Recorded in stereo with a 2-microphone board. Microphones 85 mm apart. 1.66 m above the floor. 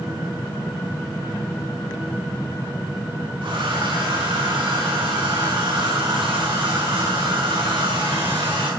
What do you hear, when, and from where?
3.4 s a hair dryer: 80° right, 7 m